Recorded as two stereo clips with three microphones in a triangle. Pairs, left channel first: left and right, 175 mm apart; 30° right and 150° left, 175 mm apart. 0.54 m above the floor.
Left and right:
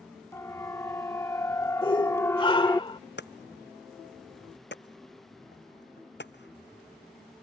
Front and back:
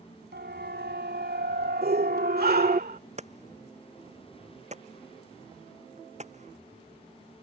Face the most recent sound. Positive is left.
turn(degrees=100)